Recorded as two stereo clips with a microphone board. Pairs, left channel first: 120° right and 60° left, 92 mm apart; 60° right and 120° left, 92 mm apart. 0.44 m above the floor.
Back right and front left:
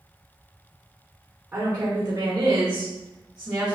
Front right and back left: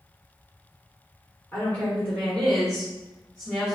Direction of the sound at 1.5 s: Straight ahead.